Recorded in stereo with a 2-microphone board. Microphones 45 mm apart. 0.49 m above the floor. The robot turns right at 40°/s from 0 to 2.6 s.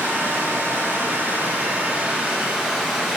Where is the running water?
100° right, 4 m; by 3.2 s 5° left, 4 m.